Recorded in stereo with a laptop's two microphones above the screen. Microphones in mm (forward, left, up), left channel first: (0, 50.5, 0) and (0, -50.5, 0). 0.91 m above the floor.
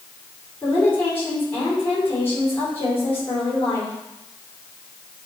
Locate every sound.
0.6 s a woman speaking: 25° left (ahead or behind), 3 m